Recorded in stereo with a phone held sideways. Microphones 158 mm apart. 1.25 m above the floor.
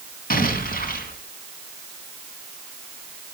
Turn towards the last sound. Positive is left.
turn(degrees=65)  # may be behind; listen again after turning